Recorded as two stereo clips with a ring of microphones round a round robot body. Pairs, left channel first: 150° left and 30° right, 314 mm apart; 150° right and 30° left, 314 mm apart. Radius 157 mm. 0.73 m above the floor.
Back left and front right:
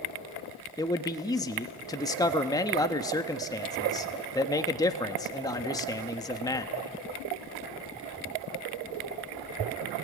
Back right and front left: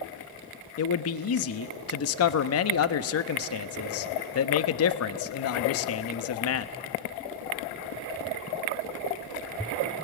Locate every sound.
0.8 s a man speaking: 135° right, 0.9 m